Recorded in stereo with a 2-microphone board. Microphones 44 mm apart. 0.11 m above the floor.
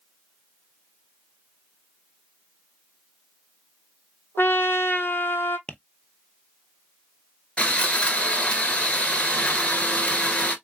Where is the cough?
No cough in this recording.